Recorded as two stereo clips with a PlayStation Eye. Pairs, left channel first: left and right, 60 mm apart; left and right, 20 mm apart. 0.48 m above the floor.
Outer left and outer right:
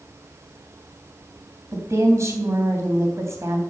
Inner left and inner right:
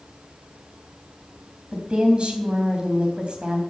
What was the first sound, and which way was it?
A woman speaking, 55° right (ahead or behind).